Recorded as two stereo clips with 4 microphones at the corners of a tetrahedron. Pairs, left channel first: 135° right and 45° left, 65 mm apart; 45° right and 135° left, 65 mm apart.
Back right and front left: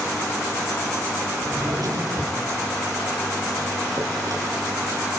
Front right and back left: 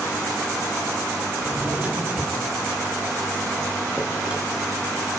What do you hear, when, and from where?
1.4 s a drawer: 65° left, 6.5 m